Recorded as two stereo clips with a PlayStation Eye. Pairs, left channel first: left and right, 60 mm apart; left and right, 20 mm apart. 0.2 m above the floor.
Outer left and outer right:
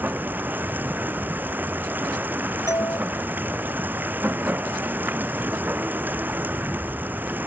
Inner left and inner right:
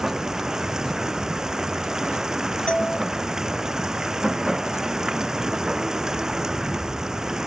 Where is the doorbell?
75° left (ahead or behind).